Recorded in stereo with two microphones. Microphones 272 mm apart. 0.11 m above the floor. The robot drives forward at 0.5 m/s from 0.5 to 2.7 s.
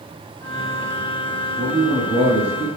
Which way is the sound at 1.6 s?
20° right (ahead or behind).